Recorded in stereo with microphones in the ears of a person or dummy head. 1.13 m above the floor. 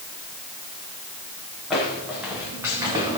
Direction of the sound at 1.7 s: 5° right (ahead or behind).